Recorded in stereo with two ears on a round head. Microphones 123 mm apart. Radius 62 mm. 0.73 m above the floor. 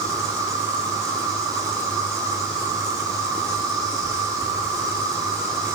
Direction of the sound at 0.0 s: 30° right (ahead or behind).